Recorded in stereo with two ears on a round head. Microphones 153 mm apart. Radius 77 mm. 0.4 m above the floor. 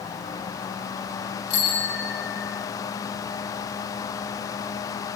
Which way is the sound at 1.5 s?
85° left.